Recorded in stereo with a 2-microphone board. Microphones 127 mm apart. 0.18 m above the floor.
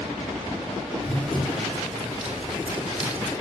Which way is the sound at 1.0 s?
5° left (ahead or behind).